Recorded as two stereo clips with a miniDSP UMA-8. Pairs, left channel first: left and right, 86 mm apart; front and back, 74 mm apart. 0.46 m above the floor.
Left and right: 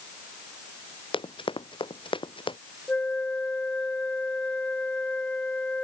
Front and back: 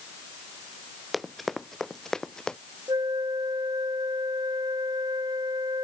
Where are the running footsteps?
90° left; by 2.6 s 80° left.